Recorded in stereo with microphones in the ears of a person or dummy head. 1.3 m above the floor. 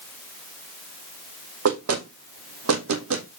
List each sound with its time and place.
1.6 s knocking: 75° right (ahead or behind), 1.7 m